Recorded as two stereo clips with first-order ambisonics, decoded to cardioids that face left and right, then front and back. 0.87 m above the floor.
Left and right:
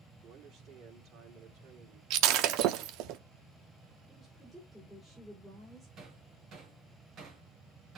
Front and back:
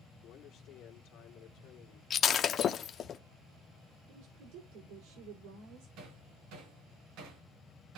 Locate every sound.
0.2 s a man speaking: 45° right, 2.5 m
2.1 s breaking glass: 60° right, 0.7 m
4.1 s a woman speaking: 175° right, 3 m
6.0 s hammering: 145° right, 3.5 m